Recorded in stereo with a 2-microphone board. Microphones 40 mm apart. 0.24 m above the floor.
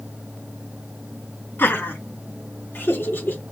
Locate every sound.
1.6 s laughter: 65° left (ahead or behind), 3.5 m; by 3.4 s 60° left (ahead or behind), 4.5 m